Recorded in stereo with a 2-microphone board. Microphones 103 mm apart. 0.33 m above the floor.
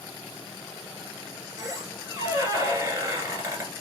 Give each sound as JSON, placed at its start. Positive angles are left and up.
{"t": 1.6, "sound": "a squeak", "side_deg": -30, "distance_m": 1.4}